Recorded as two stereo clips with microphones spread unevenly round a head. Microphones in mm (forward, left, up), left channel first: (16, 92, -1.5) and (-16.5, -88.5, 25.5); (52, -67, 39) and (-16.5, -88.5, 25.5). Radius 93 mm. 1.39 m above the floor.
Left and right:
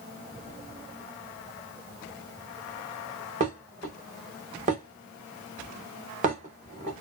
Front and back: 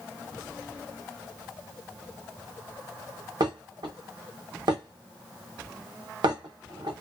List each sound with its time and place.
3.4 s dishes clattering: 145° right, 1.1 m